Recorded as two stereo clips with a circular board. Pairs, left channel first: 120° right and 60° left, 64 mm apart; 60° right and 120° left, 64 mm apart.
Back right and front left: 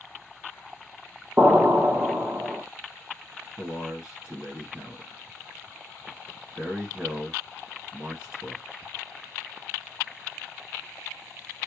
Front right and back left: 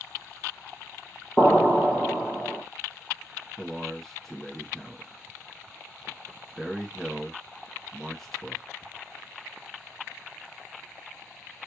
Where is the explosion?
5° left, 1.2 m.